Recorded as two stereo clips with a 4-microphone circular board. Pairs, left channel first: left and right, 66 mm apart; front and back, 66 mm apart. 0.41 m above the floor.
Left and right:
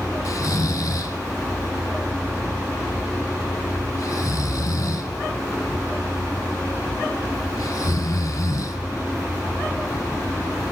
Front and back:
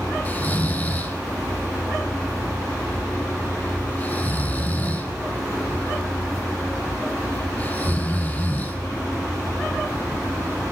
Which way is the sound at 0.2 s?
60° left.